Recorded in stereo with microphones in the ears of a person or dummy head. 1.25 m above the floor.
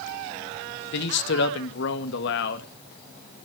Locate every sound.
0.9 s a man speaking: 65° left (ahead or behind), 1.8 m